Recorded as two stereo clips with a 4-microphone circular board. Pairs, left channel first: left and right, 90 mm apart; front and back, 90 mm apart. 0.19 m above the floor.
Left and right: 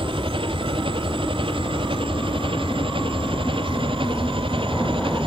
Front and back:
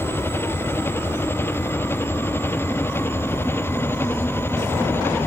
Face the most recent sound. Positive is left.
turn(degrees=-65)